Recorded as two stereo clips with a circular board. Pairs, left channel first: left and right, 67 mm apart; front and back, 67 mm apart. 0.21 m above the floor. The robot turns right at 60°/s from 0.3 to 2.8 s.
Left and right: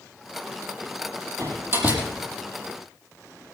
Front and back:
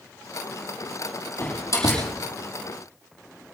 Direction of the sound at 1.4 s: 60° right.